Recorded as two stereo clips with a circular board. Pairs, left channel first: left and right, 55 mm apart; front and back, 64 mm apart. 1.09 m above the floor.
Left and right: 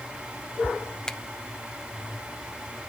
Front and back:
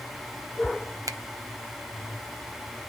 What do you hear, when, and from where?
1.1 s a finger snap: 165° left, 0.7 m